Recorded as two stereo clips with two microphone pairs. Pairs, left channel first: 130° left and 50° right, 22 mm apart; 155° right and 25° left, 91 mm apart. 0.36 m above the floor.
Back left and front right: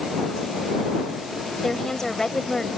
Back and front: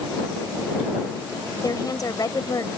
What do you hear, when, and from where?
1.6 s a woman speaking: straight behind